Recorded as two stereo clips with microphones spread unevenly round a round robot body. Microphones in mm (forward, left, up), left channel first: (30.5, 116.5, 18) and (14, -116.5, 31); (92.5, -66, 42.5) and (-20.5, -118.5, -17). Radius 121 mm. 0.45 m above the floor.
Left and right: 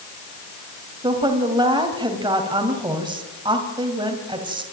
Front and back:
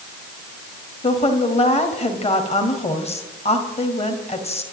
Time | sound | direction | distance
1.0 | a woman speaking | 20° right | 2.5 m